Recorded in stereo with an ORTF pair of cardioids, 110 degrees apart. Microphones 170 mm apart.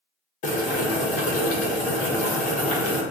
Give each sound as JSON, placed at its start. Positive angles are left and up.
{"t": 0.4, "sound": "boiling", "azimuth_deg": 45, "distance_m": 0.9}